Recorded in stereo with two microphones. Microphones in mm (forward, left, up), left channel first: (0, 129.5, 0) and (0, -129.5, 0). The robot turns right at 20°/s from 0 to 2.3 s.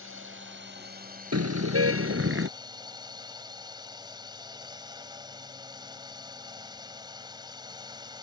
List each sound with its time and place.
0.0 s a drone: 65° right; by 8.2 s 20° right
1.3 s a car horn: 75° right (ahead or behind); by 2.5 s 55° right (ahead or behind)